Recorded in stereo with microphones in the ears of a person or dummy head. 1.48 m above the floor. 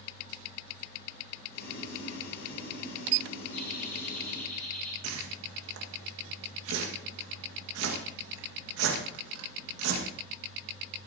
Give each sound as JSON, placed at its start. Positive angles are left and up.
{"t": 1.5, "sound": "boiling", "side_deg": 70, "distance_m": 6.5}
{"t": 3.5, "sound": "laughter", "side_deg": 45, "distance_m": 3.5}
{"t": 5.0, "sound": "a whoosh", "side_deg": -85, "distance_m": 1.8}